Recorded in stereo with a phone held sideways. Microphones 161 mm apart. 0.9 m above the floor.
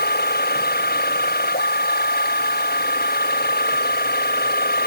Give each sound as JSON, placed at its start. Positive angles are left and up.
{"t": 0.0, "sound": "a machine running", "side_deg": 75}